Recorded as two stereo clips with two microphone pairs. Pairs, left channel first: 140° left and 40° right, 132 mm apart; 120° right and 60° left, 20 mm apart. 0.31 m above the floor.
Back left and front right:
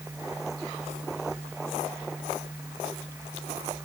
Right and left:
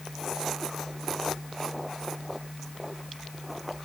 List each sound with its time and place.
Only background noise.